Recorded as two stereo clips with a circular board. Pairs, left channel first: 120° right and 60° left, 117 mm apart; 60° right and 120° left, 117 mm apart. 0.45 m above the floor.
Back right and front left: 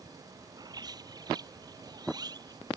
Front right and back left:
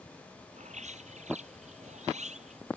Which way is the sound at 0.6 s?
115° left.